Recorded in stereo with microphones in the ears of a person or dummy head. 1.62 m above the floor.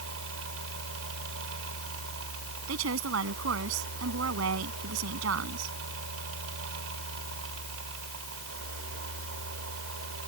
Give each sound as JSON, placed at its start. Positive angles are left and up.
{"t": 0.0, "sound": "a fan", "side_deg": -80}
{"t": 2.7, "sound": "a woman speaking", "side_deg": -80}